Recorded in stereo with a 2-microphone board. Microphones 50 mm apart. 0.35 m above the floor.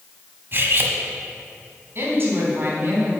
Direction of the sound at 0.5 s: 45° right (ahead or behind).